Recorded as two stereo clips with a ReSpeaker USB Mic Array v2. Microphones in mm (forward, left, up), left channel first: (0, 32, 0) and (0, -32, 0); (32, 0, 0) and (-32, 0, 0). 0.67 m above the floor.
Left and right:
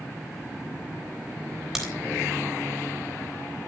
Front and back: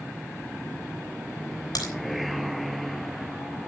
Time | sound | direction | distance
1.8 | a crack | 5° right | 4 m